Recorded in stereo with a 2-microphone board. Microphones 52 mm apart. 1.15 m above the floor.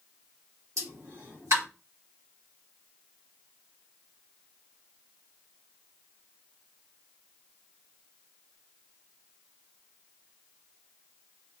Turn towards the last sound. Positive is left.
turn(degrees=-70)  # may be behind; listen again after turning